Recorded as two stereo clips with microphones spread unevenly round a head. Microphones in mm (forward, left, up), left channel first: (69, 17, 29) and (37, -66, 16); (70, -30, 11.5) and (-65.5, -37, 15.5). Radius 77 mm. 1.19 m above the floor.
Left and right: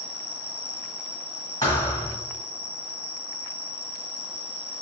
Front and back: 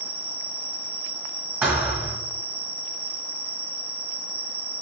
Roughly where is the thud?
Behind left.